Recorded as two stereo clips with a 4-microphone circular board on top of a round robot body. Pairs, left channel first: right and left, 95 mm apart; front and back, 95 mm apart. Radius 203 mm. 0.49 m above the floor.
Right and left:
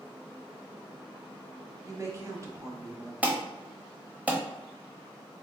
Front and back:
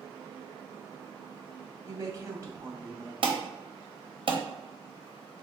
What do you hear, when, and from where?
1.9 s a woman speaking: 135° left, 1.2 m
3.2 s an alarm: 165° left, 1.0 m